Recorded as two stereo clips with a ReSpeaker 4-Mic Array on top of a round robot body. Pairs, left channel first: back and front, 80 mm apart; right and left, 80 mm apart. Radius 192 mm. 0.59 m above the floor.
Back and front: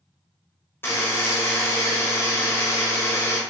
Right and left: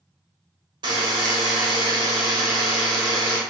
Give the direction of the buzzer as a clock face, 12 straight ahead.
8 o'clock.